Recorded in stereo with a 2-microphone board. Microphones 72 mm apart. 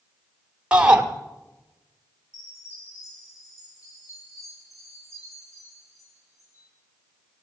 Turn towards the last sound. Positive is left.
turn(degrees=50)  # may be behind; listen again after turning